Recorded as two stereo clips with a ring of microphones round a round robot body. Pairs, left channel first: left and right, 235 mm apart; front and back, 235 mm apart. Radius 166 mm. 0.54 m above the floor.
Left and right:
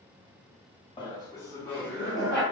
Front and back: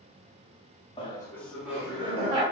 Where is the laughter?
40° left, 1.0 m; by 2.4 s 175° right, 1.0 m.